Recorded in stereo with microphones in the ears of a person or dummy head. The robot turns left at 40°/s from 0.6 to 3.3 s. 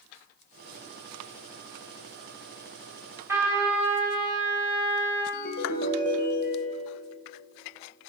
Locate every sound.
3.3 s a trumpet: 20° right (ahead or behind), 2.5 m
5.3 s a ringtone: 55° left (ahead or behind), 1.1 m